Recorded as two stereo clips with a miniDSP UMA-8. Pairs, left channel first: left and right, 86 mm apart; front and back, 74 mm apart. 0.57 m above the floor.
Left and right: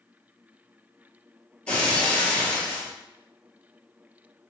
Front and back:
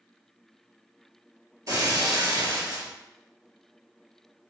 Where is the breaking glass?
160° left, 0.7 m.